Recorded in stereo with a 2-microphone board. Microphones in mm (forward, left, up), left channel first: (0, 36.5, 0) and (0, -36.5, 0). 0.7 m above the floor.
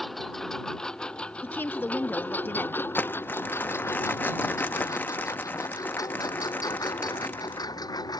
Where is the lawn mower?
Centre (ahead or behind); by 8.2 s 65° left (ahead or behind).